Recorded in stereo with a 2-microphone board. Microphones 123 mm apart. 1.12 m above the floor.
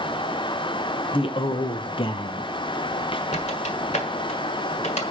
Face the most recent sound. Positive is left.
turn(degrees=60)  # may be behind; listen again after turning